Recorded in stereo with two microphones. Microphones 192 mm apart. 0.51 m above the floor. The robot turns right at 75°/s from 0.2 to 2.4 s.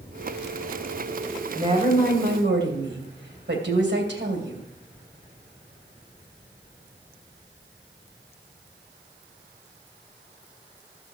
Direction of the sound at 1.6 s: 160° right.